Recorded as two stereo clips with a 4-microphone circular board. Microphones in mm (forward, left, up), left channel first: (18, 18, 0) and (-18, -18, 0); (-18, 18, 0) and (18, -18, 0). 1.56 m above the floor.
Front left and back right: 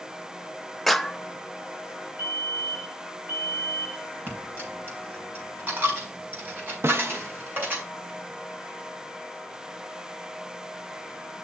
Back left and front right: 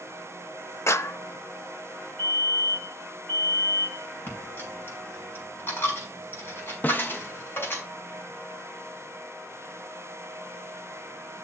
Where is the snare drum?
170° right, 0.7 m.